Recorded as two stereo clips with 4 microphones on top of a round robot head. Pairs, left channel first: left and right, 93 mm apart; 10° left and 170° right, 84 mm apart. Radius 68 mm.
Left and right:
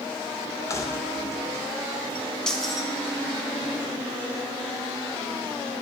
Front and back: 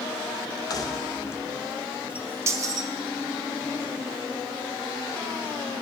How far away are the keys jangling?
About 0.8 m.